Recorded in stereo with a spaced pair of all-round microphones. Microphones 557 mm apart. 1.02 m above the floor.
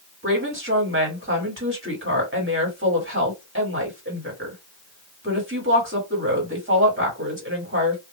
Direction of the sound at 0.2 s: 20° right (ahead or behind).